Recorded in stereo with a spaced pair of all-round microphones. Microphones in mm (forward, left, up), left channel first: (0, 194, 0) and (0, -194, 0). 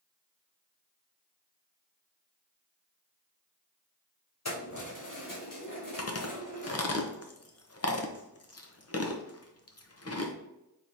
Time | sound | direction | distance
4.5 | keys jangling | 45° left (ahead or behind) | 1.0 m
6.0 | chewing | 40° left (ahead or behind) | 0.7 m